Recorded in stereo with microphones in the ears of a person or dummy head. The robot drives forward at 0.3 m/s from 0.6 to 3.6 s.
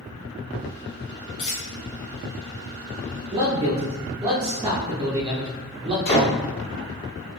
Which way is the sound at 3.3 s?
25° right (ahead or behind).